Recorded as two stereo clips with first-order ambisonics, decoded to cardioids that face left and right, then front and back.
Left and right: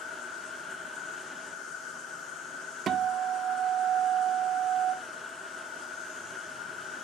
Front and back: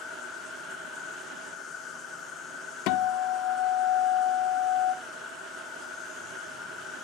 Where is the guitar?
30° right, 0.6 m.